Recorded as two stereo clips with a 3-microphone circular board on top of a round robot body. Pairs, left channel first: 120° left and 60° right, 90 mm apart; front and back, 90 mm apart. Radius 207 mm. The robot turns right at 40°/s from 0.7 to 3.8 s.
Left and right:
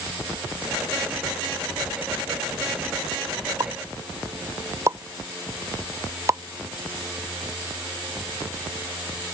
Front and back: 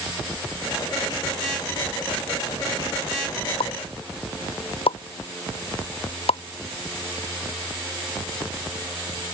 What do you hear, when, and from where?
3.6 s a pop: 10° right; by 6.4 s straight ahead